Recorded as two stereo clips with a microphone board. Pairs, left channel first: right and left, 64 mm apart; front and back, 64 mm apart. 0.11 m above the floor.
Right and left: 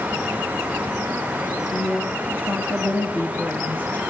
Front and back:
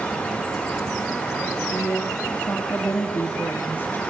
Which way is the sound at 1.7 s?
45° right.